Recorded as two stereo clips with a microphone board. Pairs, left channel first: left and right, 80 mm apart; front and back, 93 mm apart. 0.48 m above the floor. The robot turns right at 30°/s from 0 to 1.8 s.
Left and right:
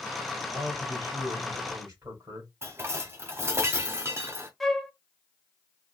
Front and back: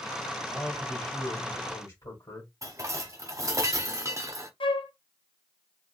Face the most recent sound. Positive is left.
turn(degrees=5)